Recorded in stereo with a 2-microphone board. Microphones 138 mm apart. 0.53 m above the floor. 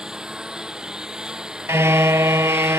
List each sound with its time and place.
0.0 s a lawn mower: 5° right (ahead or behind)
1.7 s a car horn: 20° right (ahead or behind)